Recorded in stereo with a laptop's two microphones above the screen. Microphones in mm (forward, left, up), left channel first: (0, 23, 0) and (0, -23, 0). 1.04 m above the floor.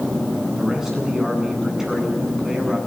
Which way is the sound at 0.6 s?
10° right (ahead or behind).